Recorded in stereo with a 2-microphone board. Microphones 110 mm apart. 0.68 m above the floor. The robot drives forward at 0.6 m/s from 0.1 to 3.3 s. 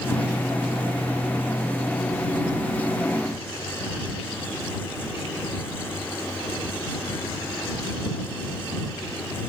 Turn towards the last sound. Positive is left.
No sound to turn to.